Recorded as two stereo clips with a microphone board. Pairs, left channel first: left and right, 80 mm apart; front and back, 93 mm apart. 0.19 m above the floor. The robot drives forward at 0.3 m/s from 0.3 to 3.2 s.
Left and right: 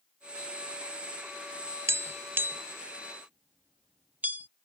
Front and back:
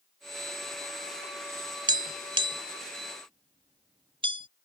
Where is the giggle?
No giggle in this recording.